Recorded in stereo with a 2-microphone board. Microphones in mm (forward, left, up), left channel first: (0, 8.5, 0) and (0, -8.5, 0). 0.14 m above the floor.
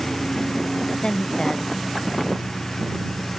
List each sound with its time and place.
0.0 s a lawn mower: 35° left (ahead or behind)
1.0 s a woman speaking: 75° left (ahead or behind)